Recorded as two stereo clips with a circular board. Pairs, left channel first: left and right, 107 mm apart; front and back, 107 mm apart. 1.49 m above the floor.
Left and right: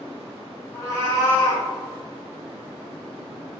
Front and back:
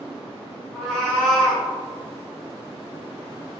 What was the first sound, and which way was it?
A cat meowing, 85° left.